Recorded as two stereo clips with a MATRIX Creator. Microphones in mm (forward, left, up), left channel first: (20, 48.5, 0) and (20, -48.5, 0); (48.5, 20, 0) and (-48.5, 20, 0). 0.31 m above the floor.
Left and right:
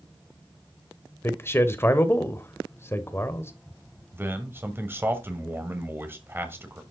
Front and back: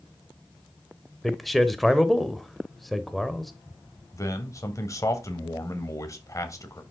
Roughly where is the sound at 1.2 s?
Left.